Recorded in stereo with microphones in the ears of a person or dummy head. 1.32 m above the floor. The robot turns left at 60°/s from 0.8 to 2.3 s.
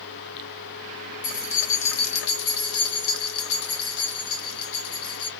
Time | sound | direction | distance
1.2 | keys jangling | 135° left | 0.7 m